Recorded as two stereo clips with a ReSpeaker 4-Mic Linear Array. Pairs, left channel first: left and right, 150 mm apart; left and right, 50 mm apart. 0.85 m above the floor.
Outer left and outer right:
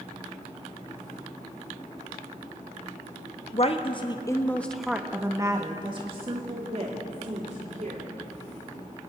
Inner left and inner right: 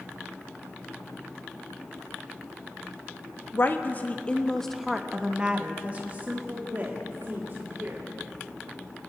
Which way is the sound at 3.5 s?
45° left (ahead or behind).